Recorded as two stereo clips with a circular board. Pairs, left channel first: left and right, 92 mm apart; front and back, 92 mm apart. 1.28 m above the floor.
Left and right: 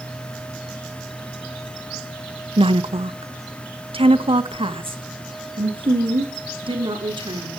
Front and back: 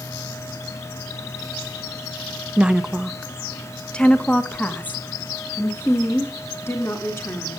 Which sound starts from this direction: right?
A woman speaking, at 2.6 s.